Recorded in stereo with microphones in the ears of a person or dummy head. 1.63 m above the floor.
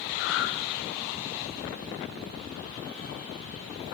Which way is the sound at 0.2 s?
65° left (ahead or behind).